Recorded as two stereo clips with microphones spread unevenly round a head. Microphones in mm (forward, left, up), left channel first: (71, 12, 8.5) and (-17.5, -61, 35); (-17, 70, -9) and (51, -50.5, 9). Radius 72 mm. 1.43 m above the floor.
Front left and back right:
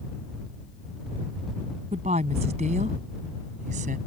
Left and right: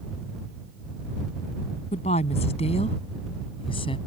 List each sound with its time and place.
1.9 s a woman speaking: 170° left; by 4.0 s straight behind